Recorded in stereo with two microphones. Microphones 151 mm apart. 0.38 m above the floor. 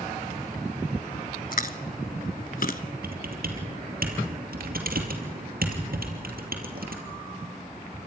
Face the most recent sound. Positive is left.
turn(degrees=-80)